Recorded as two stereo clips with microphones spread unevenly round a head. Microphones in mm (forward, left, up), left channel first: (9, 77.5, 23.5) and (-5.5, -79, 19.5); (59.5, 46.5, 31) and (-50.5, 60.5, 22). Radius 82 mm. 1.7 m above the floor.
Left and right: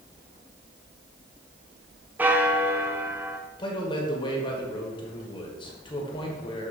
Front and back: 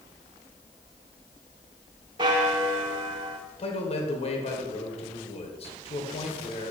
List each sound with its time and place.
2.2 s a bell: 170° right, 0.6 m
3.6 s a man speaking: 25° left, 1.4 m